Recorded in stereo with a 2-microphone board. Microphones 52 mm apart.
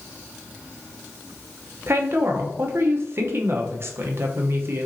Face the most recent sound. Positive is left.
turn(degrees=-50)  # may be behind; listen again after turning